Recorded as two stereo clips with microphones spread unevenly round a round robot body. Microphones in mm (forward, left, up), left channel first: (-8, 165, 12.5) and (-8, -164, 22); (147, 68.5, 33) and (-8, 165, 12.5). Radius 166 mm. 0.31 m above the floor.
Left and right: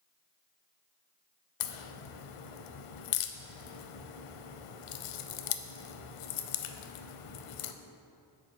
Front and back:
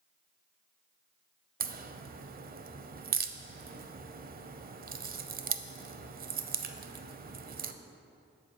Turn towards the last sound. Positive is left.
turn(degrees=110)